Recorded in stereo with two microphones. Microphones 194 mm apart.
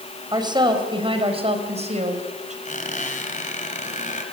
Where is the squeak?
40° left (ahead or behind), 4 m.